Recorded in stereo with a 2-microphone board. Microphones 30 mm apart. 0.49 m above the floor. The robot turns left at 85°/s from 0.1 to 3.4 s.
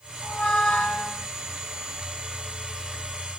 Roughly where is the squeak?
Left.